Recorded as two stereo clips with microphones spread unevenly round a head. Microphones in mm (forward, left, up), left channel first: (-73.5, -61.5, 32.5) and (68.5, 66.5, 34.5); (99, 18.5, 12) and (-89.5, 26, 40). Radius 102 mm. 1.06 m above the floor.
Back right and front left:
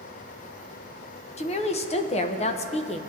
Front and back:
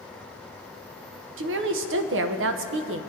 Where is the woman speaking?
170° left, 0.7 m.